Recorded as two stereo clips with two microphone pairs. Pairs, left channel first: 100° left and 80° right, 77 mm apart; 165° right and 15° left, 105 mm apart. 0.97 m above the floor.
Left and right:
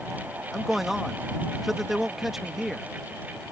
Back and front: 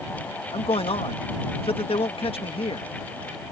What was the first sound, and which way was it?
A man speaking, 165° right.